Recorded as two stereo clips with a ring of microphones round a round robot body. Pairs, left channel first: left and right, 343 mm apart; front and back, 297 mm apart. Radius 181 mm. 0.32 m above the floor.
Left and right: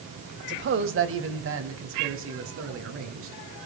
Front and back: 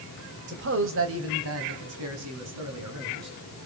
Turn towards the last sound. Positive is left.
turn(degrees=-140)